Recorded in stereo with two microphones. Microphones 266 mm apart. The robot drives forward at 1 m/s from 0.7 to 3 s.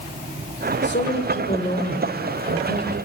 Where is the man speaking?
45° left (ahead or behind), 1.7 m; by 3.0 s 20° left (ahead or behind), 3.5 m.